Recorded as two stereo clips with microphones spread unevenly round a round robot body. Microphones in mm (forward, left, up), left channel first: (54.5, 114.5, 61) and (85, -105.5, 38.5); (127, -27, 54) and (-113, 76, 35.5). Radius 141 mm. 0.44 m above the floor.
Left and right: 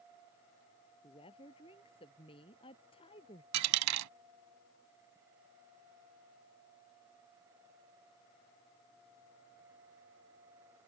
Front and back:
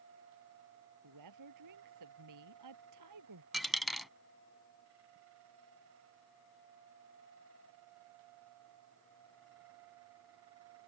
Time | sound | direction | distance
1.0 | a woman speaking | 170° left | ?
3.5 | a dropped coin | 110° right | ?